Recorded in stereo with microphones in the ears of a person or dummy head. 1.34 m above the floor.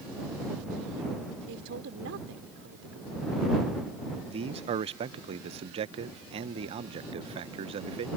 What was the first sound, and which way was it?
A man speaking, 80° right.